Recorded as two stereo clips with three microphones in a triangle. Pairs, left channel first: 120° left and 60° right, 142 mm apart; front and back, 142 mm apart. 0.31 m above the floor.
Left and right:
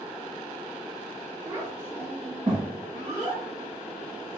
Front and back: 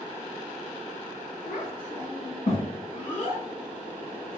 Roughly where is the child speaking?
Ahead.